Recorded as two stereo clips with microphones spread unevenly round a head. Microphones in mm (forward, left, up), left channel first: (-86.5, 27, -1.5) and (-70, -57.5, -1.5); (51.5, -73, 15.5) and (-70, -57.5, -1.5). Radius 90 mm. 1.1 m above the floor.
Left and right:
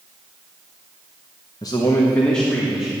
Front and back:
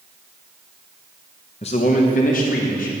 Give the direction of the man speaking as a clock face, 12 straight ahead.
11 o'clock.